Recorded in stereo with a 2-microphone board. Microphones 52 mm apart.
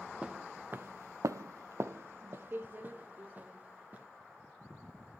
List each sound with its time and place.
0.2 s footsteps: 15° right (ahead or behind), 0.8 m; by 4.1 s 30° right (ahead or behind), 2 m